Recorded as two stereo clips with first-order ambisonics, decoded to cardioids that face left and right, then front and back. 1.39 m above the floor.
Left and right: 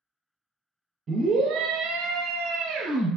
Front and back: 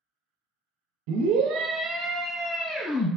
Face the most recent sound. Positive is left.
turn(degrees=-75)